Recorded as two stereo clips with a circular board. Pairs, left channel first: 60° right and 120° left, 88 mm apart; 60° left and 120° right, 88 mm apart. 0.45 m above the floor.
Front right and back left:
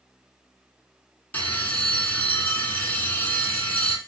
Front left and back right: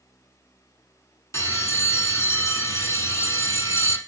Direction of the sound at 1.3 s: 10° left.